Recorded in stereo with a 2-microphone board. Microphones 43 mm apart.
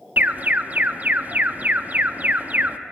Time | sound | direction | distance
0.2 | an alarm | 35° right (ahead or behind) | 0.5 m